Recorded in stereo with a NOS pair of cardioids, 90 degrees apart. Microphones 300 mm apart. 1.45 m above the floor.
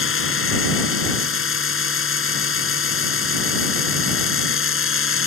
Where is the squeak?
I don't hear a squeak.